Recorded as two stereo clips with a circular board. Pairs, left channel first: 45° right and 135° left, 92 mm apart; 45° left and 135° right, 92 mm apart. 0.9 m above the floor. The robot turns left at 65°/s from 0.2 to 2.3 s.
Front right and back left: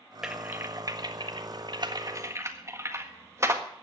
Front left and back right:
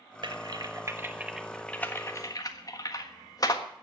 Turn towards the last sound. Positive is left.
turn(degrees=80)